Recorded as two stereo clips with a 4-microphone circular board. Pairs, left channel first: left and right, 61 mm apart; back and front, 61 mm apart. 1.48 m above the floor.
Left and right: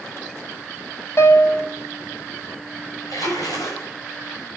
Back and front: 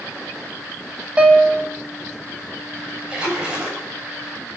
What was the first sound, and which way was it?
A piano, 70° left.